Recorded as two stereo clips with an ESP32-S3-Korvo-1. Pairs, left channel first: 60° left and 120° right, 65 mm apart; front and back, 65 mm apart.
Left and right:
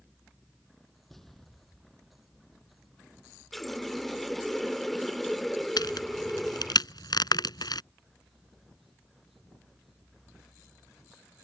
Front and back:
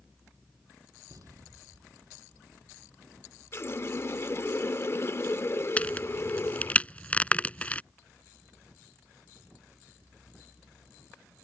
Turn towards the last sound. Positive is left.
turn(degrees=70)